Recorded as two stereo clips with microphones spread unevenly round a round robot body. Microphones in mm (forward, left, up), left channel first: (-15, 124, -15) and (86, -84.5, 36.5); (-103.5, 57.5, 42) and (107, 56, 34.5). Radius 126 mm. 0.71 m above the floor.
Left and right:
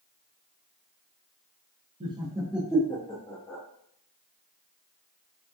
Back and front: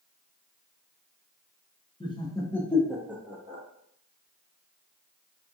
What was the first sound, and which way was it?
Laughter, 135° right.